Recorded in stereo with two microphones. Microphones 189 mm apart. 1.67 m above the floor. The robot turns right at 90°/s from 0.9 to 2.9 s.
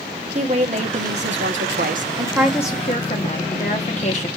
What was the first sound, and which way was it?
A woman speaking, 145° right.